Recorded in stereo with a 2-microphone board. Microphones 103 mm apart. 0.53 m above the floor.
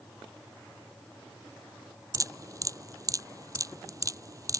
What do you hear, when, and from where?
2.1 s dripping: 35° right (ahead or behind)